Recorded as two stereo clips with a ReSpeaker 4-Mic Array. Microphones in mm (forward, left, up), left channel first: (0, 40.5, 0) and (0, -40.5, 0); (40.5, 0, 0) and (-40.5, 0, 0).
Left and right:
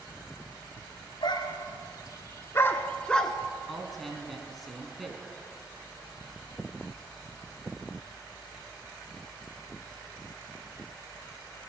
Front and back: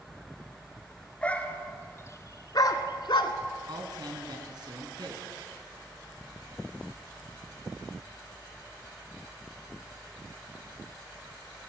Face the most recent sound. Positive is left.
turn(degrees=180)